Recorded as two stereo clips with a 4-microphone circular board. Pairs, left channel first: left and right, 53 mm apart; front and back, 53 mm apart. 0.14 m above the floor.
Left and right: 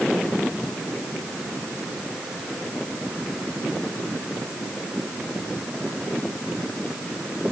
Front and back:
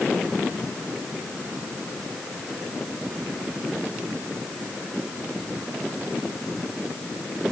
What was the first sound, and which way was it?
Only background noise.